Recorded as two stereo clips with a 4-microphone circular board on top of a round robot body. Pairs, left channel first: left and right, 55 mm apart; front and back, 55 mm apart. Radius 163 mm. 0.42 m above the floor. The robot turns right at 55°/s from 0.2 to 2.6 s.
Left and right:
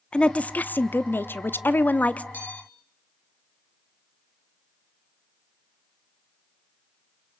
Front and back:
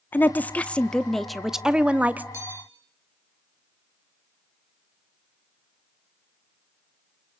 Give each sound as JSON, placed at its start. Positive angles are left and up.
{"t": 0.1, "sound": "a woman speaking", "azimuth_deg": 30, "distance_m": 1.0}
{"t": 2.3, "sound": "a bell", "azimuth_deg": 150, "distance_m": 7.0}